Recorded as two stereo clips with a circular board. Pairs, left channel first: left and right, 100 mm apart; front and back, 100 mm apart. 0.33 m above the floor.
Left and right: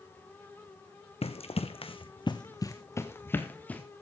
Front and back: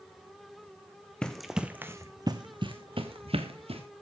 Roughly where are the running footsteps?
Left.